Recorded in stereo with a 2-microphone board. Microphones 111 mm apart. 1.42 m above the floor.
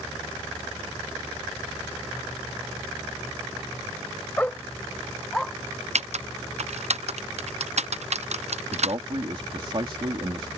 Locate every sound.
4.4 s a dog barking: 15° left (ahead or behind); by 5.5 s 5° left (ahead or behind)
6.0 s typing on a keyboard: 70° right (ahead or behind)
8.7 s a man speaking: 50° right (ahead or behind)